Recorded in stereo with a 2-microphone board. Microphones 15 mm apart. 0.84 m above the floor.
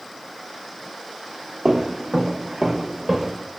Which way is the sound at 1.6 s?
50° right (ahead or behind).